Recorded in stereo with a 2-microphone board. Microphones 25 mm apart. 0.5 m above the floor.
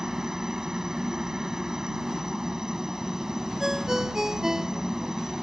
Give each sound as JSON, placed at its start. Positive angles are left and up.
{"t": 0.0, "sound": "a helicopter", "side_deg": -25}
{"t": 3.6, "sound": "a ringtone", "side_deg": -15}